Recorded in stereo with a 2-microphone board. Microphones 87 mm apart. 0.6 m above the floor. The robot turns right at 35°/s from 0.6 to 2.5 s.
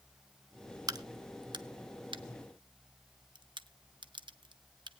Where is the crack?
50° right (ahead or behind), 0.7 m; by 4.9 s 65° right (ahead or behind), 0.7 m.